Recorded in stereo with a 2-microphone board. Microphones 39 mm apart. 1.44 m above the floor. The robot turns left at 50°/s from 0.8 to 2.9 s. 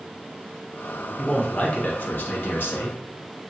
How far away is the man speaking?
About 0.8 m.